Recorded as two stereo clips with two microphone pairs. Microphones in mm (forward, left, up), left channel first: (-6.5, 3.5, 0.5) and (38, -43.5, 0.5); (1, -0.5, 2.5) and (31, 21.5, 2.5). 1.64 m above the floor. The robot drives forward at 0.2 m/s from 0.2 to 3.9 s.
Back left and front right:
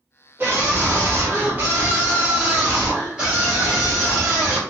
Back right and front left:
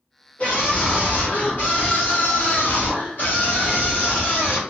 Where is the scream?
100° right, 1.5 m; by 4.6 s 125° right, 1.8 m.